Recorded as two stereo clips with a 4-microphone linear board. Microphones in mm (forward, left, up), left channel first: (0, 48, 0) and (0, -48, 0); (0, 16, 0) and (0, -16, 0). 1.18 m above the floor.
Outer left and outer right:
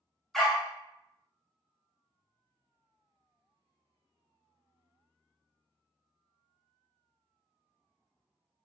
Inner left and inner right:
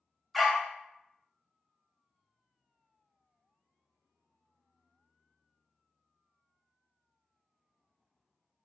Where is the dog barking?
5° left (ahead or behind), 0.6 m.